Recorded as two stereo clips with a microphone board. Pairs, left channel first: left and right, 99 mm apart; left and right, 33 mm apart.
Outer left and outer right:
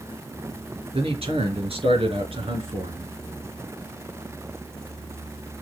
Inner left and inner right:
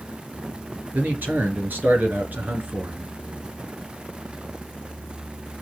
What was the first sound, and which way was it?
A man speaking, 75° right (ahead or behind).